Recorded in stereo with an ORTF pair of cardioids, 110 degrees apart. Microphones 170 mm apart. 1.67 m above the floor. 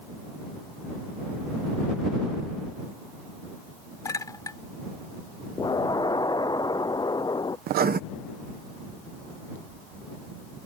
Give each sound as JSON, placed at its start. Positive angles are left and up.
{"t": 4.0, "sound": "a clink", "azimuth_deg": 20}
{"t": 5.6, "sound": "an explosion", "azimuth_deg": 25}
{"t": 7.7, "sound": "writing", "azimuth_deg": -65}